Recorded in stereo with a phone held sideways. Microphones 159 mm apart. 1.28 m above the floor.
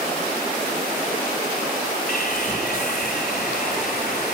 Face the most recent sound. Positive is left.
turn(degrees=85)